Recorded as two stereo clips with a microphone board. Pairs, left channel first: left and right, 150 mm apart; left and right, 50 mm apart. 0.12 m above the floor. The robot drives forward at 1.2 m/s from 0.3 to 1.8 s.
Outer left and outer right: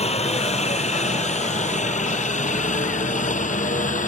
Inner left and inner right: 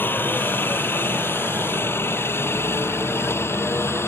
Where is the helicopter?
45° left (ahead or behind); by 4.1 s 60° left (ahead or behind).